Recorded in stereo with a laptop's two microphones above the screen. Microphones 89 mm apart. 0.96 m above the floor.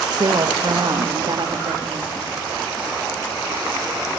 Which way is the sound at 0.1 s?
50° right (ahead or behind).